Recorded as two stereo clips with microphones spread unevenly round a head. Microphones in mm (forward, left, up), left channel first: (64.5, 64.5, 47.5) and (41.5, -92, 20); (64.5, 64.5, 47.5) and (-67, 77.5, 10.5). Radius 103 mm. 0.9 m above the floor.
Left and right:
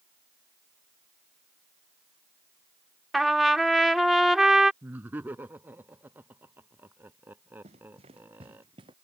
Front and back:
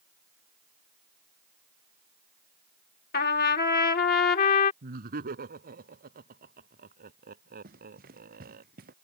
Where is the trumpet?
10° right.